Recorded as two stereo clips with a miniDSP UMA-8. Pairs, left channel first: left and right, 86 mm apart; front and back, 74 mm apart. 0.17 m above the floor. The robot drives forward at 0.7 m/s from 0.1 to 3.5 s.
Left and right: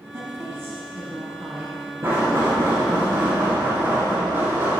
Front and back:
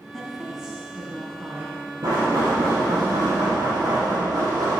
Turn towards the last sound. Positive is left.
turn(degrees=-150)